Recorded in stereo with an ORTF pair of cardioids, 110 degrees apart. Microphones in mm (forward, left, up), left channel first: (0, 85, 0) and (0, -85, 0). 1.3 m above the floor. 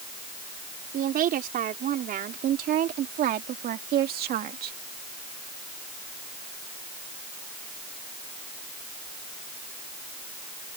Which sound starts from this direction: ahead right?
A woman speaking, at 0.9 s.